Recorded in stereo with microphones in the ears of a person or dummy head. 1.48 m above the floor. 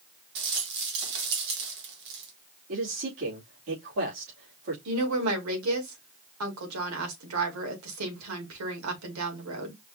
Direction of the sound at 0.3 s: 60° right (ahead or behind).